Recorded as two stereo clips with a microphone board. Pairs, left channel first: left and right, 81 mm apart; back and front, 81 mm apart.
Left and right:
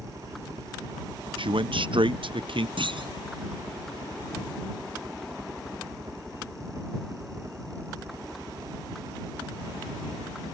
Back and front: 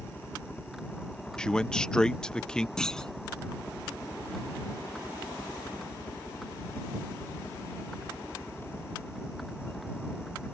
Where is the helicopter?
110° right; by 10.5 s 125° right.